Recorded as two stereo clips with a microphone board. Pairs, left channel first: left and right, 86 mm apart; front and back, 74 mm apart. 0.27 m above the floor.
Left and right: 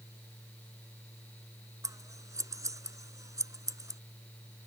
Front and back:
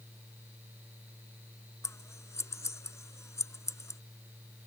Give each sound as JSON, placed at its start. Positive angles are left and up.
{"t": 1.8, "sound": "scissors", "azimuth_deg": -45}